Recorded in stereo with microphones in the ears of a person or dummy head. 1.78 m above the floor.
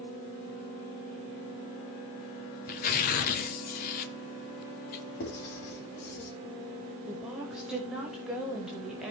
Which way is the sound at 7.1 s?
5° right (ahead or behind).